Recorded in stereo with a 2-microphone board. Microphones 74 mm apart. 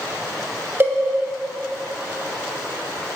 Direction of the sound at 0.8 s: 25° right (ahead or behind).